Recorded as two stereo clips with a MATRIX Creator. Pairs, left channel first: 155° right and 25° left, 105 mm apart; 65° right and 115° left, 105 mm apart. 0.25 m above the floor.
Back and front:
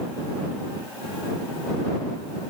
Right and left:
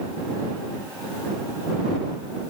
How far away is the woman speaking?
I don't hear a woman speaking.